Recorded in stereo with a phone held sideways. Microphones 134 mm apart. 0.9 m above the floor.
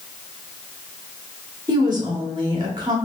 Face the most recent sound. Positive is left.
turn(degrees=-35)  # may be behind; listen again after turning